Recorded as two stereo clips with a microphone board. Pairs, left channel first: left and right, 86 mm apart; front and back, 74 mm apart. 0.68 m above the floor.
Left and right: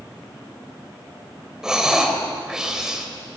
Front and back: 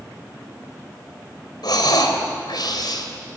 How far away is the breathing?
About 3 m.